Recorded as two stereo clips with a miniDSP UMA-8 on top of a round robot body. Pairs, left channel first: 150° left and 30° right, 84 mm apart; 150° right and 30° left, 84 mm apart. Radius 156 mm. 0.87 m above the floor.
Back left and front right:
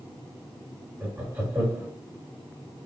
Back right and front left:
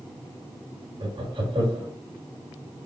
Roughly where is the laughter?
Ahead left.